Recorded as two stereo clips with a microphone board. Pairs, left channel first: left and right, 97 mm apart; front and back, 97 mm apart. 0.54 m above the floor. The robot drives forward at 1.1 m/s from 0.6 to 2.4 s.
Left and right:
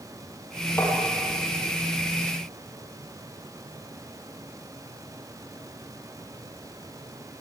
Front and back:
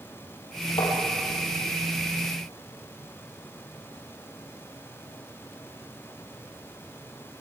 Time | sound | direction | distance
0.8 | tapping | 25° left | 6.5 m